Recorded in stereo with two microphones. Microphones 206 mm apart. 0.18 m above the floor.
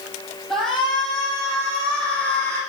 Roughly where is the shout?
Centre.